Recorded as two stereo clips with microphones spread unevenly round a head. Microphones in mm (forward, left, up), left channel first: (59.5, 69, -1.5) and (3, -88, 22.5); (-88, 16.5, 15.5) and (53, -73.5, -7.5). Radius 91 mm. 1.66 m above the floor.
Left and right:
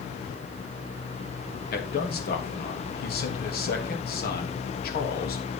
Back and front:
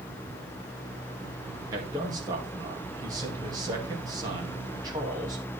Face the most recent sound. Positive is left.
turn(degrees=40)